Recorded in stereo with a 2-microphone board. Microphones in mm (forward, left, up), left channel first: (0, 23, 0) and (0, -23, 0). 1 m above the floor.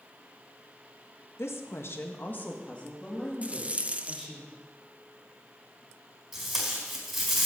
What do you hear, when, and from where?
1.4 s a woman speaking: 60° left (ahead or behind), 1.5 m; by 4.4 s 5° left (ahead or behind), 3.5 m
3.4 s a rattle: 30° right (ahead or behind), 0.6 m
6.3 s tape being pulled: 5° right (ahead or behind), 4.5 m